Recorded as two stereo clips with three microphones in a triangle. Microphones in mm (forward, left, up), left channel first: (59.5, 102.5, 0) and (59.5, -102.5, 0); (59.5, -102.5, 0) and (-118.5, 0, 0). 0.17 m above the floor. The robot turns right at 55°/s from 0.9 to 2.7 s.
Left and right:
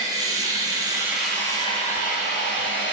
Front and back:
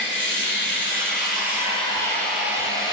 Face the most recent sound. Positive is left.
turn(degrees=80)